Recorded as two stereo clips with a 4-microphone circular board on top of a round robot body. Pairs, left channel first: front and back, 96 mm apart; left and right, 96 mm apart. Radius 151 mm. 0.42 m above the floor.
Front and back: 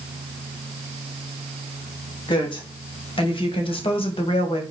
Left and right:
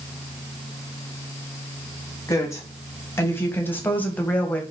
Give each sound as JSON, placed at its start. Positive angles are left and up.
{"t": 2.3, "sound": "a woman speaking", "azimuth_deg": 30, "distance_m": 3.5}